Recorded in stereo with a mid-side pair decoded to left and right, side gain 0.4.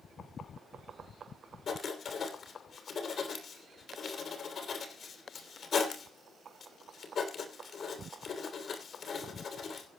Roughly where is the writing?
Ahead left.